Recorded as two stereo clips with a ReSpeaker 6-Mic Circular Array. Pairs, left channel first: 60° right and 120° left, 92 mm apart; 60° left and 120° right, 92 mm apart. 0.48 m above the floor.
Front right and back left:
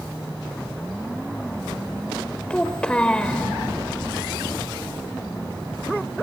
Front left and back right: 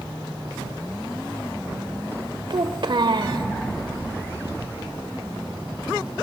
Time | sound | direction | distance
2.5 | a child speaking | 135° right | 1.4 m